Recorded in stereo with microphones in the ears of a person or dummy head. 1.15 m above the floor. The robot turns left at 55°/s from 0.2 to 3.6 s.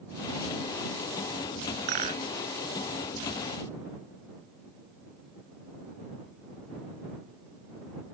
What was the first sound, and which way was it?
A rattle, 50° right (ahead or behind).